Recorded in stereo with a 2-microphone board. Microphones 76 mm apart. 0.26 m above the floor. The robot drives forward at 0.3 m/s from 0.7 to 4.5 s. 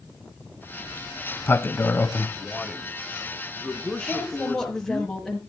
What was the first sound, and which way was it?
A sliding door, 25° left (ahead or behind).